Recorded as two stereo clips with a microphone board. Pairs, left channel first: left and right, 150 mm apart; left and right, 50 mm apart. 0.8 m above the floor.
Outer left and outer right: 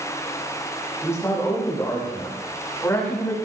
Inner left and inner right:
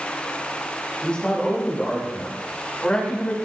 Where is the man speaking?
20° left (ahead or behind), 7 m.